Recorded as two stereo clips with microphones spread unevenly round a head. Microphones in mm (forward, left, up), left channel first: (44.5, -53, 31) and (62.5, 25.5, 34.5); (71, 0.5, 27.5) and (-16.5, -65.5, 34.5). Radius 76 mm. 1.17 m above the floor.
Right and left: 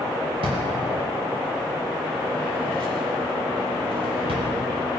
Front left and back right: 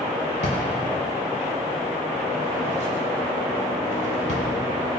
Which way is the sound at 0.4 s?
75° left.